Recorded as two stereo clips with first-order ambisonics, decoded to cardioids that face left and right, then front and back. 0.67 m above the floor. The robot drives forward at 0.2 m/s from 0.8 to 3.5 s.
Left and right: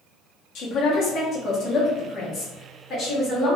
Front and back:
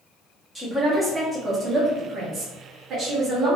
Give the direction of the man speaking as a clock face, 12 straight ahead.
9 o'clock.